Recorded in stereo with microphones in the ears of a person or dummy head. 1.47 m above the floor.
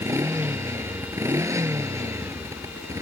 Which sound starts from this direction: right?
A motorcycle, at 0.0 s.